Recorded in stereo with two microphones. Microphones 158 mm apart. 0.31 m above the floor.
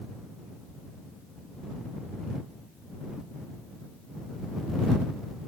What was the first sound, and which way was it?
Only background noise.